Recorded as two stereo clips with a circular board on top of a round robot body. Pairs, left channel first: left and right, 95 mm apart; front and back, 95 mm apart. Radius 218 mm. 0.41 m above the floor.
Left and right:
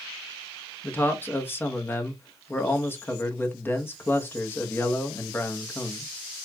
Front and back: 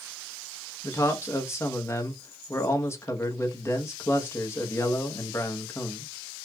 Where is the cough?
No cough in this recording.